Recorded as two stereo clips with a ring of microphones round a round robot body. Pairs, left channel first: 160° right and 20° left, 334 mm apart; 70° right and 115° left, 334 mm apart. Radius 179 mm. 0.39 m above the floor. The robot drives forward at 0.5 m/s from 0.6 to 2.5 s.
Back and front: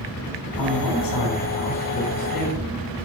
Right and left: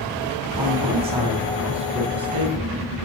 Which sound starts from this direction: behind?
A man speaking, at 0.6 s.